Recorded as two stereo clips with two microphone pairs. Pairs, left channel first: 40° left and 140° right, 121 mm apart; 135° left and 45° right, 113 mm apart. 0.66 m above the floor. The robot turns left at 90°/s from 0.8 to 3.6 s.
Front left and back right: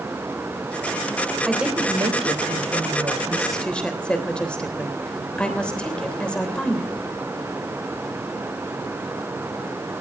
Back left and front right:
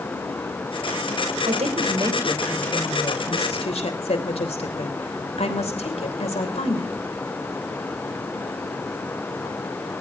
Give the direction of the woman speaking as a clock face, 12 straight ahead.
2 o'clock.